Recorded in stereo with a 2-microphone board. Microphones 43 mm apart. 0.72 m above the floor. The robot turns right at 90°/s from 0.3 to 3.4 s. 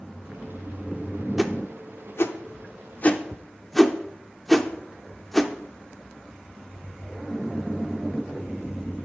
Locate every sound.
1.4 s a whoosh: 5° right (ahead or behind), 0.7 m; by 5.5 s 5° left (ahead or behind), 0.7 m